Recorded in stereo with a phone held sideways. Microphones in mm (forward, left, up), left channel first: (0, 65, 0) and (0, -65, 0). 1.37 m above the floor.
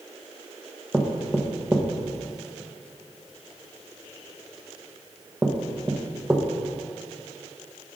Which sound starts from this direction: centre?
Knocking, at 0.9 s.